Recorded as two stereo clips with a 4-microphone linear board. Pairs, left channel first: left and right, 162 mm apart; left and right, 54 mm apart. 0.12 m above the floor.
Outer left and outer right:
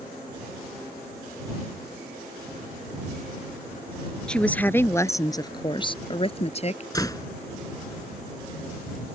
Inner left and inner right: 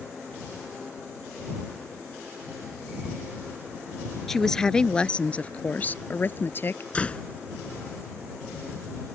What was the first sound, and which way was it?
A woman speaking, 5° left (ahead or behind).